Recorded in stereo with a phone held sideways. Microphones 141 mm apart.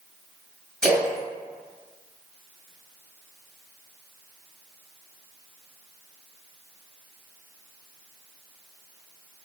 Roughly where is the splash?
Centre.